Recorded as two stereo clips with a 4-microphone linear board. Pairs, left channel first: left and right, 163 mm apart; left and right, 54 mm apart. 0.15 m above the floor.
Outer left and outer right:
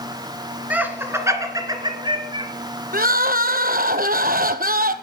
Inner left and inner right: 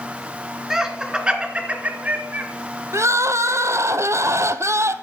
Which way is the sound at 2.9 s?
65° right (ahead or behind).